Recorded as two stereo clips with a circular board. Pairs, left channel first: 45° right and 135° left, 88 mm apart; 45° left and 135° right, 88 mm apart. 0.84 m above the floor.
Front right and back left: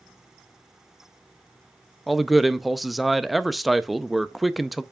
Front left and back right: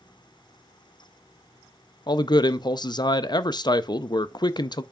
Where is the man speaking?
45° left, 0.5 m.